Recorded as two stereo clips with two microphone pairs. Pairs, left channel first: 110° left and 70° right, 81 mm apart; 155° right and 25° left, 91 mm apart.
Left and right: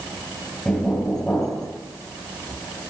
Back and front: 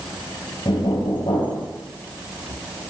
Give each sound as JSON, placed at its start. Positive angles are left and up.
{"t": 0.7, "sound": "knocking", "azimuth_deg": -175, "distance_m": 3.0}